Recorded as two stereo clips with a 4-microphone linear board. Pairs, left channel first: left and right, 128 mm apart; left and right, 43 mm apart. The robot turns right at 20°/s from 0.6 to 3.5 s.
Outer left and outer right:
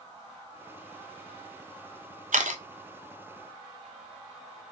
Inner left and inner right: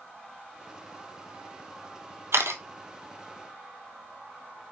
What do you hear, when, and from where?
2.3 s a camera shutter: 90° right, 0.9 m; by 2.6 s 80° right, 0.9 m